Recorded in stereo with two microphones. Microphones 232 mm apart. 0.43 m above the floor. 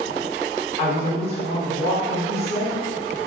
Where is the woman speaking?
25° left (ahead or behind), 1.2 m.